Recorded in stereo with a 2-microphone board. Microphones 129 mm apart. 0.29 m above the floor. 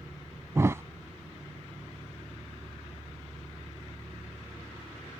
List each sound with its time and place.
0.6 s a thud: 20° right (ahead or behind)